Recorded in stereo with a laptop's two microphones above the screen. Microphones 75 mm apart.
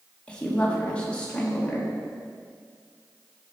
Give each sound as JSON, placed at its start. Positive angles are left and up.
{"t": 0.3, "sound": "a woman speaking", "side_deg": 15, "distance_m": 1.3}